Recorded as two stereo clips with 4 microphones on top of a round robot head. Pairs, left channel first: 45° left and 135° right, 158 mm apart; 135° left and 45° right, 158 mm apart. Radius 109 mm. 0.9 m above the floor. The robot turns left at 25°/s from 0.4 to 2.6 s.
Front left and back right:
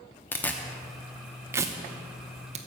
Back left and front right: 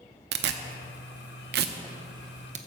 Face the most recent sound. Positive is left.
turn(degrees=-90)